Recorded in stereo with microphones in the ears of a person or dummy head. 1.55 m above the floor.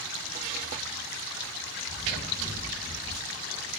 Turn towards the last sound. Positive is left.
turn(degrees=30)  # may be behind; listen again after turning